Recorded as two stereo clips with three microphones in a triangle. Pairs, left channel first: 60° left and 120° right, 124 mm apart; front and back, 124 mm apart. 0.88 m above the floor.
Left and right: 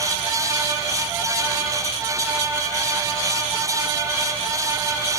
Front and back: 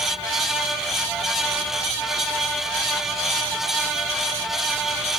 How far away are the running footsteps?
No running footsteps in this recording.